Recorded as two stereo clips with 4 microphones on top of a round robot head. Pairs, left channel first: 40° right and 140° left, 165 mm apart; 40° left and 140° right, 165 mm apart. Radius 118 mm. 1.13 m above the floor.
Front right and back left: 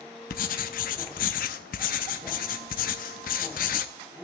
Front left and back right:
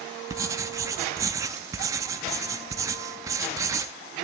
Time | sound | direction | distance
0.3 | writing | 70° right | 0.6 m